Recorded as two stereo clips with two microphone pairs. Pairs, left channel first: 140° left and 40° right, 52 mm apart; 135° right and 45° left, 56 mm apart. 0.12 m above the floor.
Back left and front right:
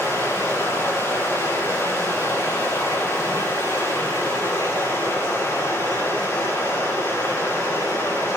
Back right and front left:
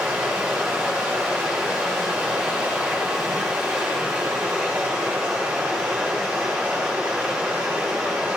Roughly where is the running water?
Behind left.